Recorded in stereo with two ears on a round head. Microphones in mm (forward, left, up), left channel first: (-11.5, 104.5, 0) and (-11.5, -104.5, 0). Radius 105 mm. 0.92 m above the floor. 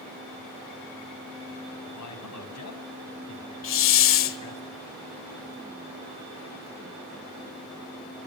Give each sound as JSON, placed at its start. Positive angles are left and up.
{"t": 1.9, "sound": "a man speaking", "side_deg": 75, "distance_m": 6.5}
{"t": 3.6, "sound": "a hiss", "side_deg": 55, "distance_m": 2.0}